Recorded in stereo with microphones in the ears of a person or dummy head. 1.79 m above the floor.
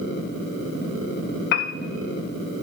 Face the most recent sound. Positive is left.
turn(degrees=60)  # may be behind; listen again after turning